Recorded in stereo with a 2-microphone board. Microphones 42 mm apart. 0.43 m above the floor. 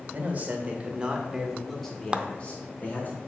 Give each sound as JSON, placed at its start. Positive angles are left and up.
{"t": 0.1, "sound": "a man speaking", "side_deg": -40, "distance_m": 1.8}
{"t": 2.1, "sound": "a clap", "side_deg": -25, "distance_m": 0.6}